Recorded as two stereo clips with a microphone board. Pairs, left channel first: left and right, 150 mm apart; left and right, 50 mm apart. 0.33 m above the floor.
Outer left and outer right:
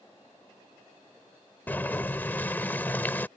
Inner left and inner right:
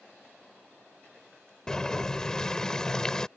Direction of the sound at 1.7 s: 15° left (ahead or behind).